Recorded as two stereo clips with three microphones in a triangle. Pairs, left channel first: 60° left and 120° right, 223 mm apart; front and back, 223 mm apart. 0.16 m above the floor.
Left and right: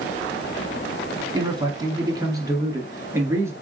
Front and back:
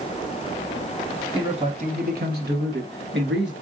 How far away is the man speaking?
About 1.1 m.